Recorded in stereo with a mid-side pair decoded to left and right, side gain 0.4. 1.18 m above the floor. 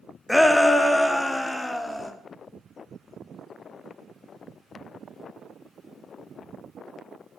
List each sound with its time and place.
0.3 s a shout: 10° left, 1.7 m; by 2.1 s 15° left, 2.5 m